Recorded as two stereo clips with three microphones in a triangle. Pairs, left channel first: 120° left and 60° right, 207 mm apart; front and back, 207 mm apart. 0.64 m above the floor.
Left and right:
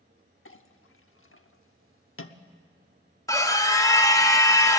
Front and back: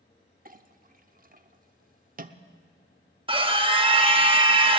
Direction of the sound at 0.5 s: 130° left.